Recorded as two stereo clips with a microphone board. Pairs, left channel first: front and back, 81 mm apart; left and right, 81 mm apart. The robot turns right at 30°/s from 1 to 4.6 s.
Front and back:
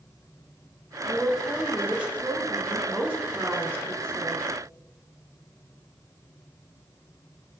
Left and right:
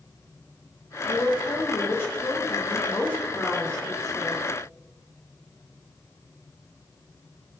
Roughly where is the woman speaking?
Left.